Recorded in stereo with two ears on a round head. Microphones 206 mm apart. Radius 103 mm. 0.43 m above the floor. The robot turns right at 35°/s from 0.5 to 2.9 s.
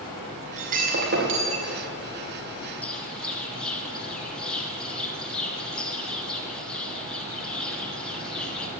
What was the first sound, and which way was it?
Breaking glass, 150° right.